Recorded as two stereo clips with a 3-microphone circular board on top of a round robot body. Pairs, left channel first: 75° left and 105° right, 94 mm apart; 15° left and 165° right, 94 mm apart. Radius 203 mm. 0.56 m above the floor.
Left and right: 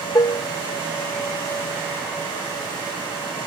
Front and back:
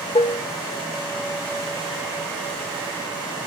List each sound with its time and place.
0.1 s dishes clattering: 25° left, 0.7 m